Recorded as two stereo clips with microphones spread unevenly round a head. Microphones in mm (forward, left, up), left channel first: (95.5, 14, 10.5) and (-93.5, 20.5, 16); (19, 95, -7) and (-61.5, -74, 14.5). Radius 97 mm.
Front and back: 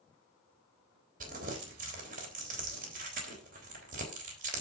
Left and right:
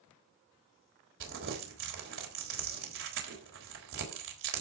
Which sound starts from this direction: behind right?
Crumpling, at 1.2 s.